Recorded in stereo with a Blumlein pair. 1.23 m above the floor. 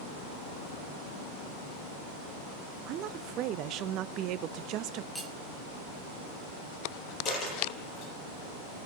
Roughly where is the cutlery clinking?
Ahead.